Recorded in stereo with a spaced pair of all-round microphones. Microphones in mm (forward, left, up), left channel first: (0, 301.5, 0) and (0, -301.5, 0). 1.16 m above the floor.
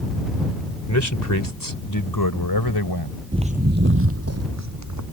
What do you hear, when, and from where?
0.9 s a man speaking: 25° left (ahead or behind); by 3.2 s 40° left (ahead or behind)
3.3 s footsteps: 10° right (ahead or behind); by 5.0 s 30° right (ahead or behind)